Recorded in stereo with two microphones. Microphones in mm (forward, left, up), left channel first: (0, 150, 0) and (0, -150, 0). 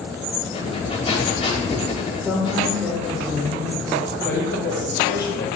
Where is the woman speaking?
5° right (ahead or behind), 1.7 m.